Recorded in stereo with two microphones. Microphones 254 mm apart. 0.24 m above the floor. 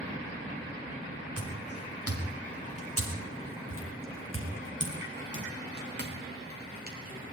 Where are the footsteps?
80° right, 4 m; by 7.3 s 35° right (ahead or behind), 5 m.